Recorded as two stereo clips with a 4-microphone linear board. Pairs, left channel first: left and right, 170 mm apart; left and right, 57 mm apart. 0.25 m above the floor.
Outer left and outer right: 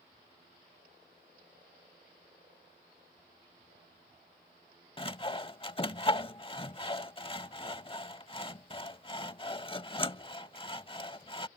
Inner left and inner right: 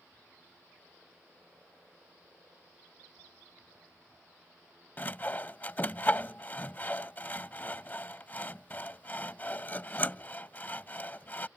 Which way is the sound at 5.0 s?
30° left (ahead or behind).